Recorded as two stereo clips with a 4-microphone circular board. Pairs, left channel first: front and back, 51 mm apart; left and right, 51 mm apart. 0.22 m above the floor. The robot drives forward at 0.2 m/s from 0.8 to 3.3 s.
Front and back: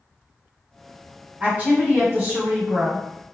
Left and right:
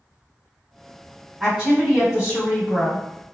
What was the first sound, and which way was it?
A woman speaking, 165° right.